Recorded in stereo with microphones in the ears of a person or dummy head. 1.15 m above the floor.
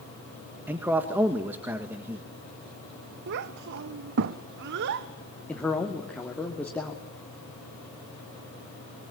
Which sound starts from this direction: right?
A child speaking, at 3.3 s.